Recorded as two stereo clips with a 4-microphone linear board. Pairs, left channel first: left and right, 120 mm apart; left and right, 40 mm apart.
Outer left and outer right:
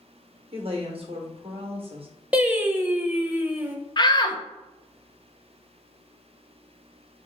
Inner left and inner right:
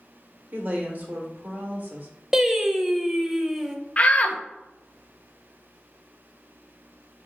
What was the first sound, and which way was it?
A woman speaking, 50° right (ahead or behind).